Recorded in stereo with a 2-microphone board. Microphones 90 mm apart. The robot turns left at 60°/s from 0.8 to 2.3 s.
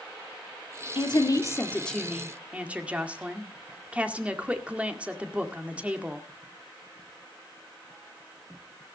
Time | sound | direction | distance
0.9 | a woman speaking | 65° left | 1.9 m